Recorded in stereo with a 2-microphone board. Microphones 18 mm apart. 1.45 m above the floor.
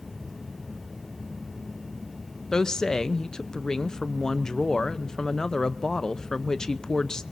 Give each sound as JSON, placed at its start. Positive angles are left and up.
{"t": 2.5, "sound": "a woman speaking", "side_deg": 30, "distance_m": 0.8}